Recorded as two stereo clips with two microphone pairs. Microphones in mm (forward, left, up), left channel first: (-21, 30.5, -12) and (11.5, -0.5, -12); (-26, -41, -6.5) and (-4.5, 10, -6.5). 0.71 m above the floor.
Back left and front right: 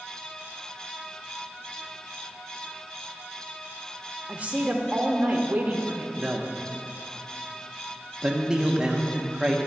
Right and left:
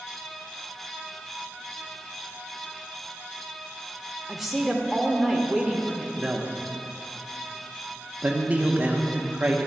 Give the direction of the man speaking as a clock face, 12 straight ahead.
11 o'clock.